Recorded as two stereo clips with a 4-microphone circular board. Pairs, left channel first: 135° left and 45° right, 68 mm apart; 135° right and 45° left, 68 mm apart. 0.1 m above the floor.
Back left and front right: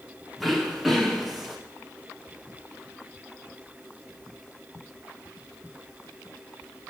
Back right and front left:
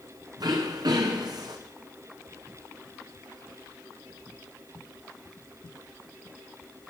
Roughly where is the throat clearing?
Ahead left.